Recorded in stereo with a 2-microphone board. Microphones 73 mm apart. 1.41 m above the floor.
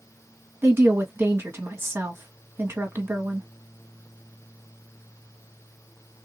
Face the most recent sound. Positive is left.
turn(degrees=-30)  # may be behind; listen again after turning